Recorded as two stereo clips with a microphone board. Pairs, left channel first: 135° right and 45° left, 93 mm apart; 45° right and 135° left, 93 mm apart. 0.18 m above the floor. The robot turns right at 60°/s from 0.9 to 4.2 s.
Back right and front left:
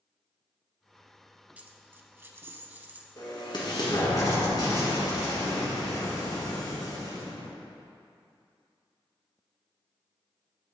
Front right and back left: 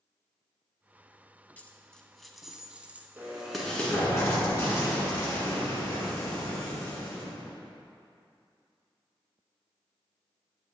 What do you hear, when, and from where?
1.6 s a dropped coin: straight ahead, 0.5 m; by 3.1 s 90° left, 0.5 m
3.2 s an explosion: 160° right, 1.7 m; by 7.5 s 100° right, 1.7 m